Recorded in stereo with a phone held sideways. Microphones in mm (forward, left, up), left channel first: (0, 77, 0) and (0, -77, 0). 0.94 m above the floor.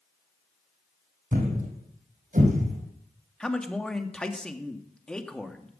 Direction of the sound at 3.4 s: 5° left (ahead or behind).